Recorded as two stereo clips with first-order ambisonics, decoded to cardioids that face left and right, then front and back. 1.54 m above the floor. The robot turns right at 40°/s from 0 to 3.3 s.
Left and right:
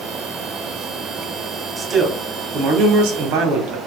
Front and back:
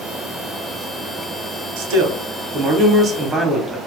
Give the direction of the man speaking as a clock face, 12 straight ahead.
6 o'clock.